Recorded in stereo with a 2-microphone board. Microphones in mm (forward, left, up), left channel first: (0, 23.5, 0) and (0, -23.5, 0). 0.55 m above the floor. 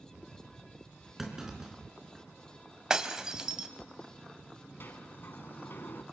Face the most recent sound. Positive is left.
turn(degrees=45)  # may be behind; listen again after turning